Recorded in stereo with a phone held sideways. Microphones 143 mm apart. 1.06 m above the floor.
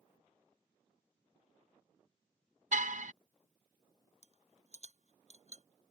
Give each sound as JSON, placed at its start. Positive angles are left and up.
{"t": 2.7, "sound": "a car horn", "side_deg": -65}
{"t": 4.2, "sound": "a rattle", "side_deg": 55}